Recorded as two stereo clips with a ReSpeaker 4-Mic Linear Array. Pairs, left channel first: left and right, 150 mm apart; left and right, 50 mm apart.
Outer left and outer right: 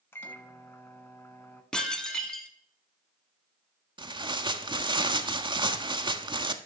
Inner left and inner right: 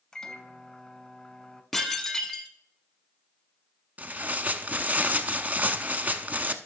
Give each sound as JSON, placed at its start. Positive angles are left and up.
{"t": 0.1, "sound": "a microwave", "side_deg": 15, "distance_m": 0.9}
{"t": 1.7, "sound": "dishes clattering", "side_deg": 5, "distance_m": 0.9}
{"t": 4.0, "sound": "tearing paper", "side_deg": -30, "distance_m": 0.6}